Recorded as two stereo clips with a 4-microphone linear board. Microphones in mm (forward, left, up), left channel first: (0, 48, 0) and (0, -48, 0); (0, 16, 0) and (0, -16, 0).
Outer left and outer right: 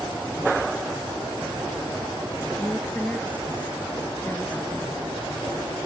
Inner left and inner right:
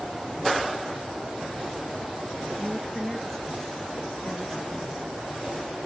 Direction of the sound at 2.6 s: 15° left (ahead or behind).